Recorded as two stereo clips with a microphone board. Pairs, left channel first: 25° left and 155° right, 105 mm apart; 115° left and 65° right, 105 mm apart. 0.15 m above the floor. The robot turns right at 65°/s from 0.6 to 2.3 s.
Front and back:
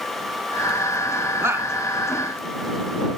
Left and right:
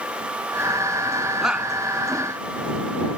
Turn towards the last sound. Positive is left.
turn(degrees=-90)